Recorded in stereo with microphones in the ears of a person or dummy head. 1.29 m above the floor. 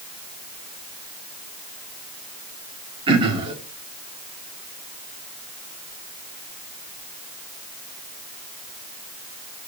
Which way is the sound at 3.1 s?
30° right (ahead or behind).